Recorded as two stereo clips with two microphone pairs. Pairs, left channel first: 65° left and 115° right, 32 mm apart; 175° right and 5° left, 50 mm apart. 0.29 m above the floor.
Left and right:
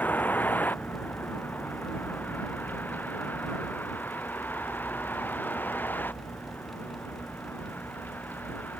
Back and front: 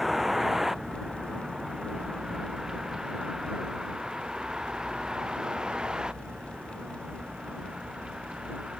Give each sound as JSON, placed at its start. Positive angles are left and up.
{"t": 0.0, "sound": "a vehicle", "azimuth_deg": 90}